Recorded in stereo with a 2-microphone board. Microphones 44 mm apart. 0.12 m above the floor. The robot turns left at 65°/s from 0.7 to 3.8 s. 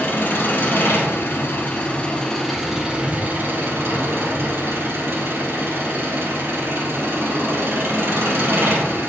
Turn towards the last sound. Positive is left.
turn(degrees=-85)